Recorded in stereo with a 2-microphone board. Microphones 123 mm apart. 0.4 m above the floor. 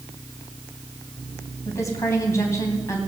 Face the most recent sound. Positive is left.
turn(degrees=25)  # may be behind; listen again after turning